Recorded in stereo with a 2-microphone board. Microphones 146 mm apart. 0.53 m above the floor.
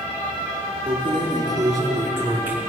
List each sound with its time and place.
0.9 s keys jangling: 35° right (ahead or behind), 4.5 m; by 2.6 s 15° right (ahead or behind), 5 m